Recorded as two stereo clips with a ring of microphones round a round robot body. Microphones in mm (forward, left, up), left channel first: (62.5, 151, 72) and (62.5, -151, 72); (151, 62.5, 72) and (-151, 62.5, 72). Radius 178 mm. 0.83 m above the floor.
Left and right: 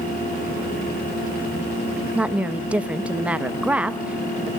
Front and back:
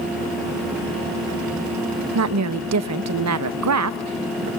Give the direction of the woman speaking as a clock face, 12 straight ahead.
6 o'clock.